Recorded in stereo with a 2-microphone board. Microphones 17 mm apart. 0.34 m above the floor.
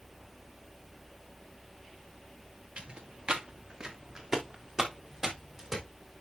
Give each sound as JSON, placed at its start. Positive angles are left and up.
{"t": 2.8, "sound": "footsteps", "side_deg": -55, "distance_m": 2.0}